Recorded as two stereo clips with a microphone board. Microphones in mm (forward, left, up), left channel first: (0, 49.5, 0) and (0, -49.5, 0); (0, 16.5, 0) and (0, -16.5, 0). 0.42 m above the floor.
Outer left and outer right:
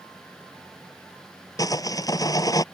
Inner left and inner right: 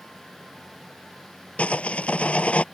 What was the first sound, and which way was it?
Sawing, 40° left (ahead or behind).